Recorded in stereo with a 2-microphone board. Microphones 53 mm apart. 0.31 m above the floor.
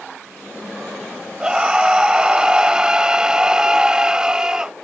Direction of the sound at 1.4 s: 15° right (ahead or behind).